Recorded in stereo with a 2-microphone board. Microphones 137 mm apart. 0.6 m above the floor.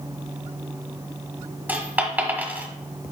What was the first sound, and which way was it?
A dropped coin, 10° right (ahead or behind).